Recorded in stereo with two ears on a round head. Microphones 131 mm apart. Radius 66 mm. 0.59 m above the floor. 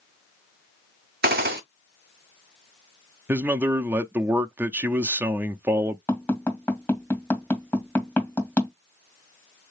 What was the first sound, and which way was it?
A gunshot, 70° right (ahead or behind).